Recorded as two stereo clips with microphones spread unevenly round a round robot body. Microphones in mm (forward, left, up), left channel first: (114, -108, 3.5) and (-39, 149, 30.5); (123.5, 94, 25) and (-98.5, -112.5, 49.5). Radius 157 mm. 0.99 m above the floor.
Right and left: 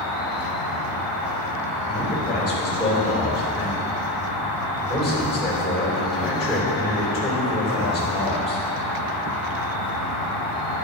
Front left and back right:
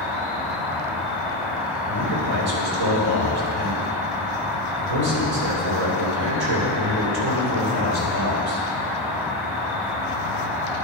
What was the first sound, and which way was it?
An insect, 140° left.